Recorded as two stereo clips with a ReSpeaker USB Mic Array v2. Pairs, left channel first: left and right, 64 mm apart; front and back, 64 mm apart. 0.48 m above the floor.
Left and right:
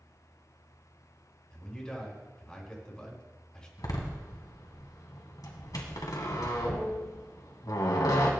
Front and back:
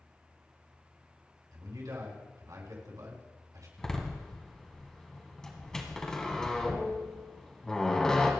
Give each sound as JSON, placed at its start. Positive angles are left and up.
{"t": 1.5, "sound": "a man speaking", "azimuth_deg": 165, "distance_m": 4.5}
{"t": 3.8, "sound": "a door slam", "azimuth_deg": 80, "distance_m": 2.0}